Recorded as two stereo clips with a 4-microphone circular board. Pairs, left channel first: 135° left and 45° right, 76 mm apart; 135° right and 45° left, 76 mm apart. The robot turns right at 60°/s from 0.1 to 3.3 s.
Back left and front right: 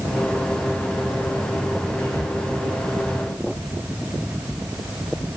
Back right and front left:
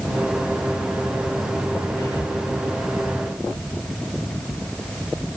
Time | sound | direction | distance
2.0 | whispering | 150° right | 2.5 m